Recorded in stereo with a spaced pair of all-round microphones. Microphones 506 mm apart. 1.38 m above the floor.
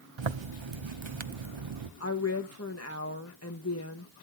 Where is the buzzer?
I don't hear a buzzer.